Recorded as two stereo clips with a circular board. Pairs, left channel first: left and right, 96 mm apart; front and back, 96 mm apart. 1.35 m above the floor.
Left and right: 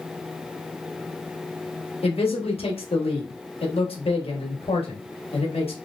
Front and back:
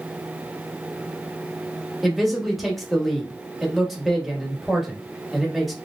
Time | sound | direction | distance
2.0 | a man speaking | 90° left | 1.1 m